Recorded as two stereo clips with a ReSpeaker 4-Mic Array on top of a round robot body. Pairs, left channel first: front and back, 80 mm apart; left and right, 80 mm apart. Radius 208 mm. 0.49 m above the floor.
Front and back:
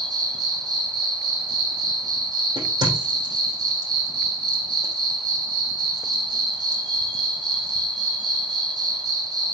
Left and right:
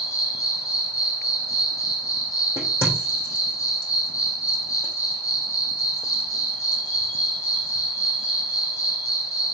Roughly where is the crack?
Behind left.